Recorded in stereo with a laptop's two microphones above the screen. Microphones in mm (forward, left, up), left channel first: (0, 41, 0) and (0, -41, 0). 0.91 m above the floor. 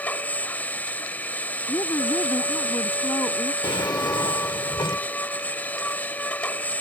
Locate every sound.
0.0 s a machine running: 20° left (ahead or behind)
1.7 s a woman speaking: 45° left (ahead or behind)
3.6 s a drawer: 70° left (ahead or behind)